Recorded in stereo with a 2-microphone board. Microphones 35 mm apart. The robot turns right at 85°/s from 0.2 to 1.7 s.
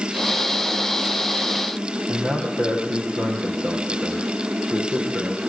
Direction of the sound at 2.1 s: 55° right (ahead or behind).